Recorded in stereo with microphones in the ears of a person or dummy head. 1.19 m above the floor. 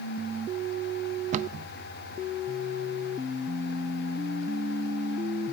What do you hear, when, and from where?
1.3 s a cupboard door: 40° right (ahead or behind), 0.6 m